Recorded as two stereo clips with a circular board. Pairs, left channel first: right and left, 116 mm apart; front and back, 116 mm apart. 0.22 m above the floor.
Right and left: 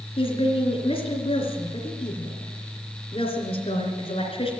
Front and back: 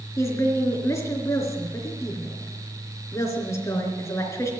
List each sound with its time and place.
0.2 s a woman speaking: 65° right, 3 m